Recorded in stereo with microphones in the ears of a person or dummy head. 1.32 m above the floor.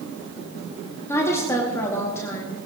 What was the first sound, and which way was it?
A woman speaking, 15° left (ahead or behind).